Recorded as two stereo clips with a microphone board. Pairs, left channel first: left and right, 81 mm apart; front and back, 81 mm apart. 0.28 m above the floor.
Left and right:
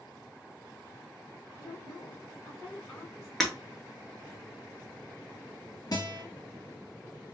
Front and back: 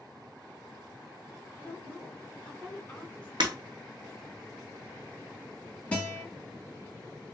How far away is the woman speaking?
About 1.2 m.